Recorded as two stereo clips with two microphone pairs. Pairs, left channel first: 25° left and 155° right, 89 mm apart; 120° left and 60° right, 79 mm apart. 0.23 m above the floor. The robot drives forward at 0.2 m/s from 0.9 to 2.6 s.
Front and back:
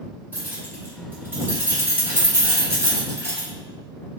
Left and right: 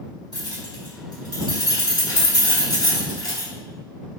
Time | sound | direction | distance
0.3 | keys jangling | 140° left | 1.8 m